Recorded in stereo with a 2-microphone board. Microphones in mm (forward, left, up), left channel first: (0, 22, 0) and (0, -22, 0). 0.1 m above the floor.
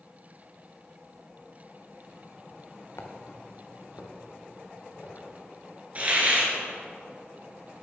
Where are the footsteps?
70° left (ahead or behind), 1.1 m; by 5.3 s 75° left (ahead or behind), 3 m.